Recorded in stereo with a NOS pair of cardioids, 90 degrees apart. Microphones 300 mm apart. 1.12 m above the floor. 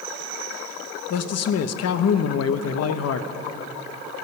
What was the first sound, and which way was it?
A man speaking, 55° left.